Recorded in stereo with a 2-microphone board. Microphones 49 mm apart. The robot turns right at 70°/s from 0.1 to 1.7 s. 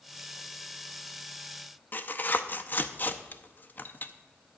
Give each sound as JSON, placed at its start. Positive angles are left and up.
{"t": 1.9, "sound": "tearing paper", "side_deg": 40, "distance_m": 0.6}